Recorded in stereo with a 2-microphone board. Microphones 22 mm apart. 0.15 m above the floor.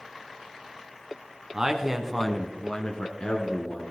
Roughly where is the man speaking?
Right.